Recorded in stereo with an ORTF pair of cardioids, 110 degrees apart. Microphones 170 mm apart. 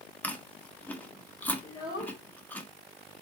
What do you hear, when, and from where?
0.2 s chewing: 10° left, 1.6 m
1.6 s a child speaking: 20° left, 2.5 m